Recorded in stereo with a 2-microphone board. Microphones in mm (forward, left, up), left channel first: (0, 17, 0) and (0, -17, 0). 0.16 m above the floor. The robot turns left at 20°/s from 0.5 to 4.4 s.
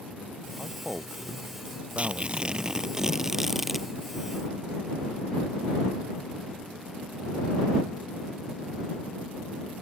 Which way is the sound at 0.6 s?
30° right.